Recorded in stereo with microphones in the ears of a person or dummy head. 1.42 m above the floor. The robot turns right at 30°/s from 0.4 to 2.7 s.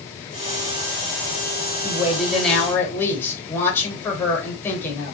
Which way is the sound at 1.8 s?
15° right (ahead or behind).